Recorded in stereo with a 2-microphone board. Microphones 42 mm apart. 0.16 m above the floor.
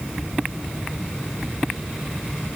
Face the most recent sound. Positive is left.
No sound to turn to.